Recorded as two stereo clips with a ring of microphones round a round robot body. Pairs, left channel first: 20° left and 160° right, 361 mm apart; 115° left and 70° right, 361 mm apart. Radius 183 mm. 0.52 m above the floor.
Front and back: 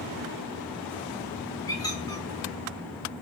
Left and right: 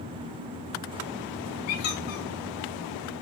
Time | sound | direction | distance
1.7 | a squeak | 105° left | 3.5 m